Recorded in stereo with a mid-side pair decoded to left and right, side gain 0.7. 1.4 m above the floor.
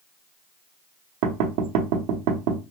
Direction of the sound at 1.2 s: 70° right.